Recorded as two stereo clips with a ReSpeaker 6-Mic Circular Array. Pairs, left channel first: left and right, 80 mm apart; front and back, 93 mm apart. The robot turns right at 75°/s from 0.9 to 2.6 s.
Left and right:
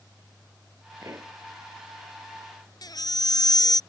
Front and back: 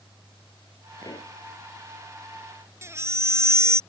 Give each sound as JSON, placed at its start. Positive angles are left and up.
{"t": 1.0, "sound": "a pop", "azimuth_deg": -45}
{"t": 2.8, "sound": "a baby crying", "azimuth_deg": 120}